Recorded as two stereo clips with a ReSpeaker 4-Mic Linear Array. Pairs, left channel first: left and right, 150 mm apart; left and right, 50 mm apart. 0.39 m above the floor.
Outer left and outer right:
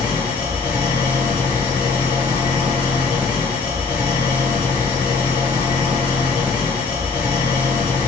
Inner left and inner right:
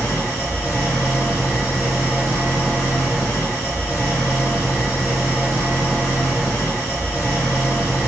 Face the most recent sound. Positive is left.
turn(degrees=-10)  # may be behind; listen again after turning